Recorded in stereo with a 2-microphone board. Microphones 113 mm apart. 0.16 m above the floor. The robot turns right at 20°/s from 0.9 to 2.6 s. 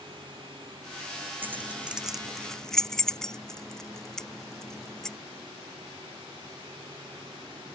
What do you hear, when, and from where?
1.4 s keys jangling: 20° right (ahead or behind); by 5.2 s 5° left (ahead or behind)